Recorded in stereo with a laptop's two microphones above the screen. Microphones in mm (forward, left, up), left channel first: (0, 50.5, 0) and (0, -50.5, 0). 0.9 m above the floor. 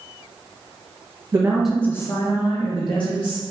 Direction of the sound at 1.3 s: 25° right (ahead or behind).